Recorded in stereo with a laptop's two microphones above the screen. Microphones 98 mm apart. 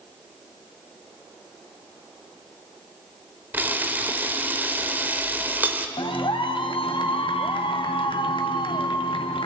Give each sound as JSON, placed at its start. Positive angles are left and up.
{"t": 3.5, "sound": "a camera shutter", "side_deg": -20, "distance_m": 1.2}
{"t": 6.0, "sound": "a clap", "side_deg": 65, "distance_m": 1.3}